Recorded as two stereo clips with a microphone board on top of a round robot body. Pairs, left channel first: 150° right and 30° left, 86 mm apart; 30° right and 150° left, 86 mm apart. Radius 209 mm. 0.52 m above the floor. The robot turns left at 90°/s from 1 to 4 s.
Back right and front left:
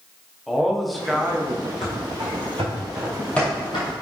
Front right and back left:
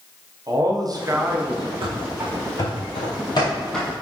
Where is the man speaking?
120° left, 1.5 m; by 1.7 s 55° left, 1.5 m.